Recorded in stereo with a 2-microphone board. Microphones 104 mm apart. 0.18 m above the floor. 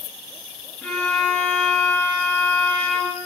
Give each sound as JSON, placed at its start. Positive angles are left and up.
{"t": 0.8, "sound": "a violin", "side_deg": 10, "distance_m": 3.0}